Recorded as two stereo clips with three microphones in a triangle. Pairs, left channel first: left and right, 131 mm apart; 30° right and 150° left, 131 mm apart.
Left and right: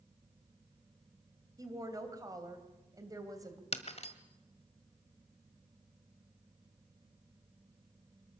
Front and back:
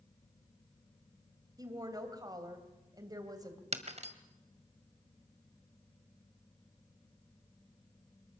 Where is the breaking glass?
120° left, 1.6 m.